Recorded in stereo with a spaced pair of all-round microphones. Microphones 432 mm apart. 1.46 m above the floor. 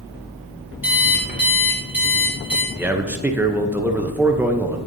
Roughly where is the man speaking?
Centre.